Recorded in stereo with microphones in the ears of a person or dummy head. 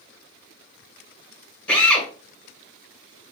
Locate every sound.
1.7 s a drill: 5° left (ahead or behind), 1.3 m